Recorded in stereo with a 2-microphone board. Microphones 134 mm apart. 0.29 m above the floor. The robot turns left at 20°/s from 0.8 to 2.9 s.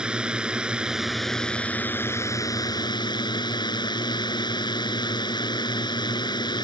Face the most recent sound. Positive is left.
turn(degrees=145)